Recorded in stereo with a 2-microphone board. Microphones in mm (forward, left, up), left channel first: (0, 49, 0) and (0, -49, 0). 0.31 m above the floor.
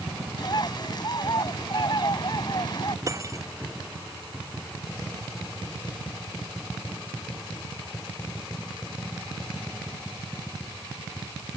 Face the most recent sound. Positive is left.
turn(degrees=-35)  # may be behind; listen again after turning